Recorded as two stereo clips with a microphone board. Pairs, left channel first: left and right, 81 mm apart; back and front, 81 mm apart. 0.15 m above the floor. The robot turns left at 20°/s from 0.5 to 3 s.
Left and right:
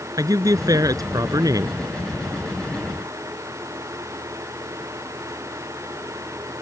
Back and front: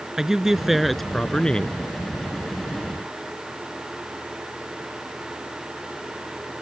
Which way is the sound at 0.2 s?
80° right.